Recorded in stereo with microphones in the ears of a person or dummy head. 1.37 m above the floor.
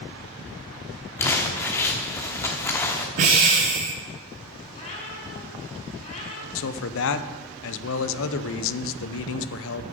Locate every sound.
1.2 s crumpling: 10° left (ahead or behind), 1.1 m
3.2 s breathing: 30° right (ahead or behind), 0.9 m
4.7 s a cat meowing: 35° left (ahead or behind), 5.5 m
6.5 s a man speaking: 70° left (ahead or behind), 0.8 m